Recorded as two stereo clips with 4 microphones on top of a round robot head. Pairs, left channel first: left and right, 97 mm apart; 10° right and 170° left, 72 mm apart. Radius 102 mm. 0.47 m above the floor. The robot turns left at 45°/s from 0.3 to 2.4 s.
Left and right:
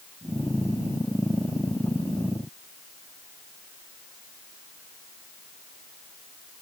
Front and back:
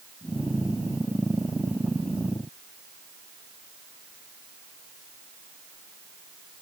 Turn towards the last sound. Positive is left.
No sound to turn to.